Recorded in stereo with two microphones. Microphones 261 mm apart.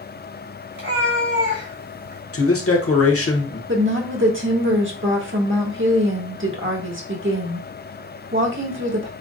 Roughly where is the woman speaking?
Right.